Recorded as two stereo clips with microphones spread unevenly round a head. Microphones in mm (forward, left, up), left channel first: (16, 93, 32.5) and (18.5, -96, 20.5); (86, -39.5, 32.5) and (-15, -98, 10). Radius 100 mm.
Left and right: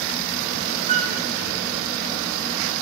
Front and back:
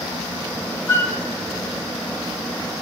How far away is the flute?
About 0.9 m.